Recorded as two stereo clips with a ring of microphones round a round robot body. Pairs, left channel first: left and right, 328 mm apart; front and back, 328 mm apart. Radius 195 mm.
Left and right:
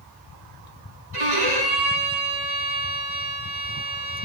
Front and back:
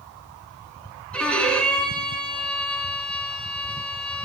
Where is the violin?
85° right, 4.5 m.